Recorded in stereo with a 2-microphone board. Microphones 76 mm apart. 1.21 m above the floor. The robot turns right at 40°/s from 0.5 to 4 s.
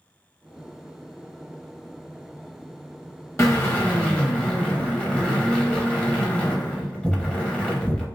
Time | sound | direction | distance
3.4 | a drill | 35° left (ahead or behind) | 1.1 m